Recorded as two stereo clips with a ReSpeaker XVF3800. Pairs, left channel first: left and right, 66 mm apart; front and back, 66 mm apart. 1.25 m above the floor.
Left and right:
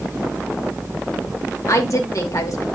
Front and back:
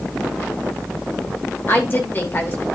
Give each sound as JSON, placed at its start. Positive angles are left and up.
{"t": 1.7, "sound": "a woman speaking", "azimuth_deg": 55, "distance_m": 2.0}